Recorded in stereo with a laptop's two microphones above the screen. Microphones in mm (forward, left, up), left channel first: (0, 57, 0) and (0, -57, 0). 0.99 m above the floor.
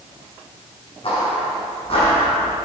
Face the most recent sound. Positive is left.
turn(degrees=55)  # may be behind; listen again after turning